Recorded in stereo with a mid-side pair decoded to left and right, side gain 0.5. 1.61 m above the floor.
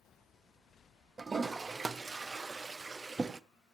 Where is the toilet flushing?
25° right, 0.7 m.